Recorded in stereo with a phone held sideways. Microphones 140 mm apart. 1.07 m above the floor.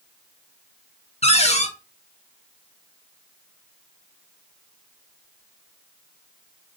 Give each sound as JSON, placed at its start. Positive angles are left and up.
{"t": 1.2, "sound": "a cupboard door", "side_deg": 50, "distance_m": 0.9}